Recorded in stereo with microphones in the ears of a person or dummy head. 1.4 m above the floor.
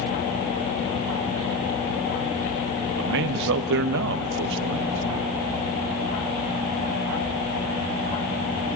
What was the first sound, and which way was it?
A man speaking, 65° right (ahead or behind).